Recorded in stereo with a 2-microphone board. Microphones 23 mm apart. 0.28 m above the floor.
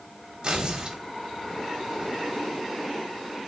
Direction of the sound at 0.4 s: 35° right (ahead or behind).